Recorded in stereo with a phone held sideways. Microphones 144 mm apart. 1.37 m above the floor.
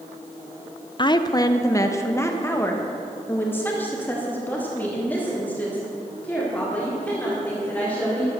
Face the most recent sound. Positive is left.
turn(degrees=10)  # may be behind; listen again after turning